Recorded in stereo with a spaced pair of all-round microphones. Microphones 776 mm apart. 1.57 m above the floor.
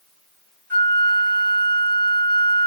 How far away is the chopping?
I don't hear chopping.